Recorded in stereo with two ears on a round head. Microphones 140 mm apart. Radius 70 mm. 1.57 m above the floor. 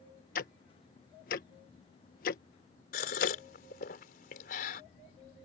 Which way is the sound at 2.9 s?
60° left (ahead or behind).